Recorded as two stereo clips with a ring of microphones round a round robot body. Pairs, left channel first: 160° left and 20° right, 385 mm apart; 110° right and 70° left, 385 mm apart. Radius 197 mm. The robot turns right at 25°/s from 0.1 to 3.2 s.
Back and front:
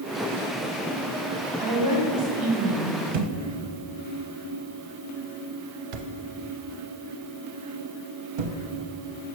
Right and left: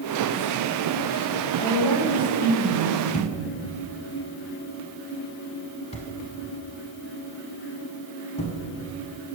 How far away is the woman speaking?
About 2.5 m.